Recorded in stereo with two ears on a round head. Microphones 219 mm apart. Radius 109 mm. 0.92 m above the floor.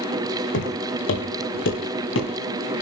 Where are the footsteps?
50° left (ahead or behind), 3.5 m; by 2.3 s 55° left (ahead or behind), 5.5 m.